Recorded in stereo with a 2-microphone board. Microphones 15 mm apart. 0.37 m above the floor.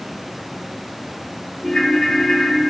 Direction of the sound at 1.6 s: 40° left (ahead or behind).